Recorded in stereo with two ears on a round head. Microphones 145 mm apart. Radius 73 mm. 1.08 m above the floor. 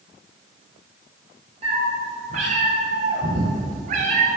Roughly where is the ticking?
I don't hear ticking.